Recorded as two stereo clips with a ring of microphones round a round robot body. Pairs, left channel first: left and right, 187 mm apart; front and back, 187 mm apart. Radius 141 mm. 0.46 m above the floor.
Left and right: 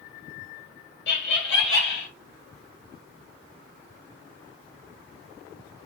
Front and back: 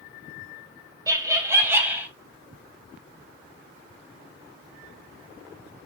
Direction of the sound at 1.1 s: 110° left.